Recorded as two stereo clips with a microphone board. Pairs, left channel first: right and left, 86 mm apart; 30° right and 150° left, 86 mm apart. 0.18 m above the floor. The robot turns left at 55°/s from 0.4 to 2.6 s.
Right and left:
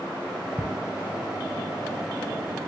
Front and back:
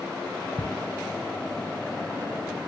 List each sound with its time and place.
0.6 s ticking: 30° right, 1.4 m